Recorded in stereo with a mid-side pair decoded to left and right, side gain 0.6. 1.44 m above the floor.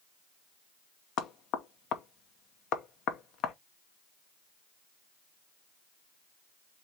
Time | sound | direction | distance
1.2 | knocking | 60° left | 0.9 m